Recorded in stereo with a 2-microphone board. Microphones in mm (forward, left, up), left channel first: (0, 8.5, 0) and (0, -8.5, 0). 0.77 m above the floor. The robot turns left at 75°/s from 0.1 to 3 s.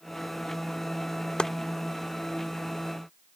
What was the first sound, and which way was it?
Chopping, 70° left (ahead or behind).